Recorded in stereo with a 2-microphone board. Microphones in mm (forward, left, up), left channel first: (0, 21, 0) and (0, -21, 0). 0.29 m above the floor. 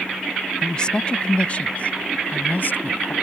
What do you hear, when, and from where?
0.6 s a woman speaking: 20° left (ahead or behind); by 3.1 s 55° left (ahead or behind)